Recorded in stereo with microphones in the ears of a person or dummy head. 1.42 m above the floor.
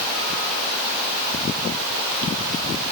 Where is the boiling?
No boiling in this recording.